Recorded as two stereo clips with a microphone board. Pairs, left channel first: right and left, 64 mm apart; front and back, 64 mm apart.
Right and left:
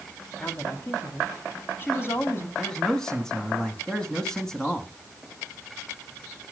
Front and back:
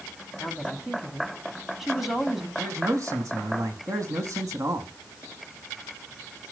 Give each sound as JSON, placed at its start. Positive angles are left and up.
{"t": 0.4, "sound": "a woman speaking", "azimuth_deg": -90, "distance_m": 1.5}
{"t": 2.6, "sound": "a man speaking", "azimuth_deg": -170, "distance_m": 1.7}